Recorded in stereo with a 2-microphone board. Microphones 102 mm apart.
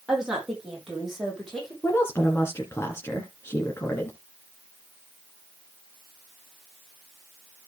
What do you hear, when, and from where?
0.1 s a woman speaking: 10° right (ahead or behind), 6.5 m; by 1.7 s centre (ahead or behind), 7.5 m
1.8 s a woman speaking: 25° left (ahead or behind), 2 m